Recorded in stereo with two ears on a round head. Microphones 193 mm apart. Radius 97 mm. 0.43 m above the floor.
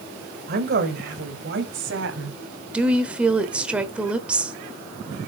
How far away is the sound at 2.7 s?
About 1.2 m.